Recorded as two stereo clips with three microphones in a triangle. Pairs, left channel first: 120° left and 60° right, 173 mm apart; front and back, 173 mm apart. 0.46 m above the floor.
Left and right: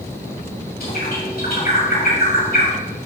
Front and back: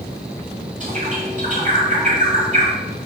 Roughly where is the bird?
Behind left.